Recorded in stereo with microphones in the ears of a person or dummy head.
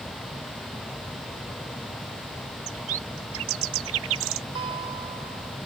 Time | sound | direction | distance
2.7 | a bird | 65° right (ahead or behind) | ?
4.5 | a guitar | 30° right (ahead or behind) | ?